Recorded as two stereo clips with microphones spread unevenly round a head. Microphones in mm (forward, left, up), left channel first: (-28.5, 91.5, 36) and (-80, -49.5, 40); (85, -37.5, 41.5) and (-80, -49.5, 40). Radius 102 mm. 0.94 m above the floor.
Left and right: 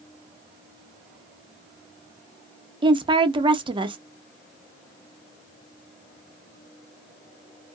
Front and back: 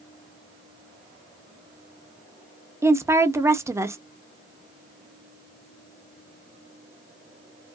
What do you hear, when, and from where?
2.8 s a woman speaking: 120° right, 0.6 m